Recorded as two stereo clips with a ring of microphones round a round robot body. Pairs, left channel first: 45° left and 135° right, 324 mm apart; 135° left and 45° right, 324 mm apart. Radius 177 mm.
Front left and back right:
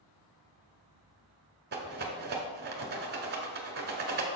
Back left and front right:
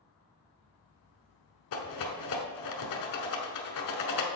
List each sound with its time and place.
1.7 s a rattle: 165° left, 1.1 m